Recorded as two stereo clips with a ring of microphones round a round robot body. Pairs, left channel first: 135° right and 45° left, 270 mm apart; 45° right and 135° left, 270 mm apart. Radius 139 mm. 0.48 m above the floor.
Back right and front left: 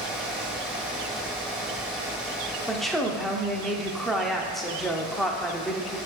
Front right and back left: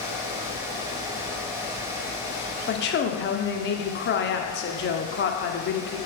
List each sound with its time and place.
2.7 s a woman speaking: 45° right, 0.8 m